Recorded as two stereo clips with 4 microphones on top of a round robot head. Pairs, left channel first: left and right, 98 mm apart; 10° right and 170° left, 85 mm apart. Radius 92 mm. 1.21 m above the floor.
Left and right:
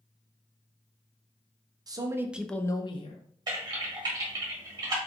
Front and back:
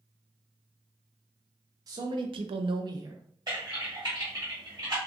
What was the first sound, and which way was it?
A man speaking, 140° right.